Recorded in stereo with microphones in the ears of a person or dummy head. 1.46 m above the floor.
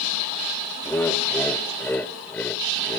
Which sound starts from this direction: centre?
Laughter, at 0.8 s.